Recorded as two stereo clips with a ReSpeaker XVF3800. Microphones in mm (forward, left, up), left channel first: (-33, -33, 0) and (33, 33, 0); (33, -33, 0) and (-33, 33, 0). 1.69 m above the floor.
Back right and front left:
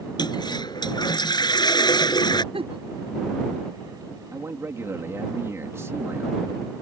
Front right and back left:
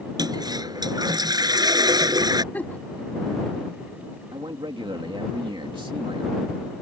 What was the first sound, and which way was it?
A toilet flushing, straight behind.